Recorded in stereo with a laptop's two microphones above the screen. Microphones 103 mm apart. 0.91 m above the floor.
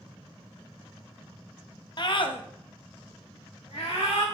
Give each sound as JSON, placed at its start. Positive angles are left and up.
{"t": 2.0, "sound": "a scream", "side_deg": 45, "distance_m": 1.1}